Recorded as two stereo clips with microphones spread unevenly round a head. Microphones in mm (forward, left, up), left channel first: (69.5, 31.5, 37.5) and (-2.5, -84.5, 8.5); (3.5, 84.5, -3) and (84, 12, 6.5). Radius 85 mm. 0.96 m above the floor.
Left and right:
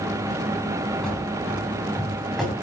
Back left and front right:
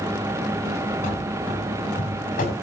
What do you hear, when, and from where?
1.0 s running footsteps: 145° left, 10 m; by 2.5 s 150° left, 9 m